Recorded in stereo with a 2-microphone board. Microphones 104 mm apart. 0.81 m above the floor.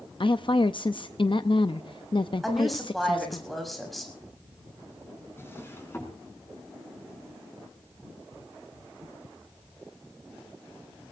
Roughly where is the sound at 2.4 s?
Centre.